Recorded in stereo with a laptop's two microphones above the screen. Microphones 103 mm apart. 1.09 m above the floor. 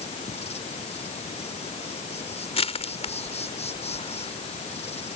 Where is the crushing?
80° left.